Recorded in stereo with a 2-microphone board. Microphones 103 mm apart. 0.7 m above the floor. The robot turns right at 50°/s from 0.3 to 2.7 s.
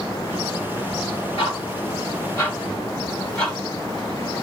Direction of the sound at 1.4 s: 65° left (ahead or behind).